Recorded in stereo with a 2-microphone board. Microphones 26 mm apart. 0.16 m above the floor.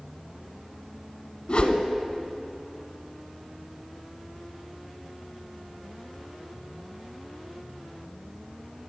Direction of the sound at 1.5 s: 45° left (ahead or behind).